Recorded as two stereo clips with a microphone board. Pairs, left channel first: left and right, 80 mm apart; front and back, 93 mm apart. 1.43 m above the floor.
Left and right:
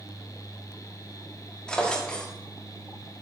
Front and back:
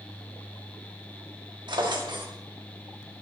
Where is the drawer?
165° left, 1.5 m.